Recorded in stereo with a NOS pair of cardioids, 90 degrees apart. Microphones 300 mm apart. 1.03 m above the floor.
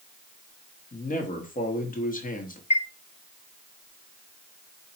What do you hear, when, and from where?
0.9 s a man speaking: 25° left, 1.4 m
2.7 s a chime: 20° left, 0.6 m